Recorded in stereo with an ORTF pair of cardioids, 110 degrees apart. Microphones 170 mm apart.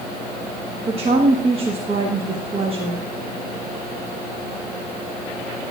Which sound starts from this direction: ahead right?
A woman speaking, at 0.9 s.